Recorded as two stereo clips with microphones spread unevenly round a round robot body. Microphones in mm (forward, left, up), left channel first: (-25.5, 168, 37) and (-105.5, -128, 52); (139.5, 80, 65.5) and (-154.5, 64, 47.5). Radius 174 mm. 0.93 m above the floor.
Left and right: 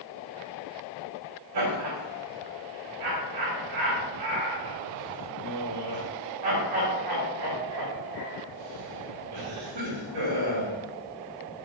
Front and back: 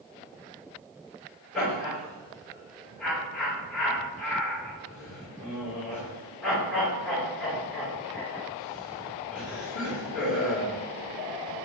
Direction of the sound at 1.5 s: 90° right.